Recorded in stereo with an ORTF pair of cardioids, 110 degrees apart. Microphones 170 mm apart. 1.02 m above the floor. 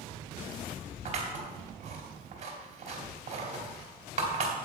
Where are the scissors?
45° right, 2.5 m.